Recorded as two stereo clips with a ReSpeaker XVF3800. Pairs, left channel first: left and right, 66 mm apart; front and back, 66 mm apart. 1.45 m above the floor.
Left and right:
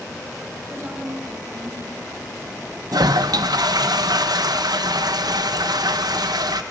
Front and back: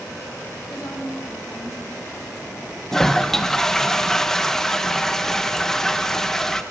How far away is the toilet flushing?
About 1.2 m.